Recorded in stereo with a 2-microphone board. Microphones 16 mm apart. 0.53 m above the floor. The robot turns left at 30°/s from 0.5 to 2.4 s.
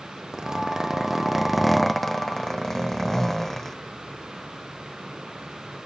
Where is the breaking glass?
I don't hear breaking glass.